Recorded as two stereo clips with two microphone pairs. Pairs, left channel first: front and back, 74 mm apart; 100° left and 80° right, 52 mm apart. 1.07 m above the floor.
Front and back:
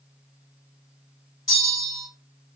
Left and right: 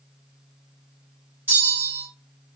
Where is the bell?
35° right, 2.5 m.